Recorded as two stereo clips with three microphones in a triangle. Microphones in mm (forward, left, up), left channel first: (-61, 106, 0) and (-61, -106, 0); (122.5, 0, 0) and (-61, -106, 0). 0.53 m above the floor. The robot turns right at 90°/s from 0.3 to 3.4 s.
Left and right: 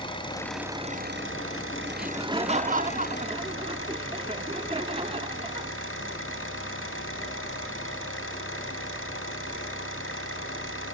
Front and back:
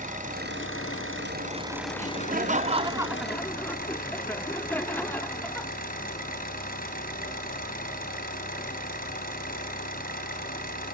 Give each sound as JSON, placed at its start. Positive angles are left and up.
{"t": 0.0, "sound": "an engine running", "azimuth_deg": 160, "distance_m": 4.0}
{"t": 1.9, "sound": "laughter", "azimuth_deg": -175, "distance_m": 0.8}